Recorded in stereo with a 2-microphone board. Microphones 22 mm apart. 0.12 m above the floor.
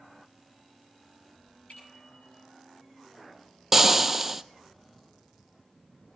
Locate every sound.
1.7 s a bicycle bell: 80° left, 9 m
3.7 s frying: 15° right (ahead or behind), 0.6 m